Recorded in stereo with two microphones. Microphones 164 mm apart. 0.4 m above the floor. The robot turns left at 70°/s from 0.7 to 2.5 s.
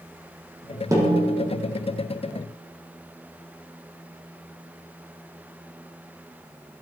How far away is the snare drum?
About 6 m.